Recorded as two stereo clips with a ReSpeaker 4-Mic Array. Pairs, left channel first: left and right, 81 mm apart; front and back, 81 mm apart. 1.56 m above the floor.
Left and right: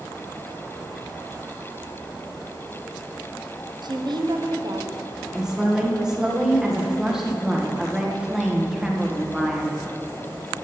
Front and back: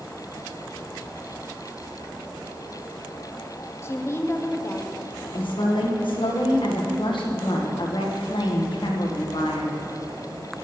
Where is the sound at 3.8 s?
60° right, 0.8 m.